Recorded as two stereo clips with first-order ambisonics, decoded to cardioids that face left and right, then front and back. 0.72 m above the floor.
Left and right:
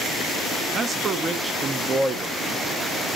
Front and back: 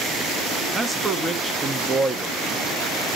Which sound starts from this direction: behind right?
A man speaking, at 0.7 s.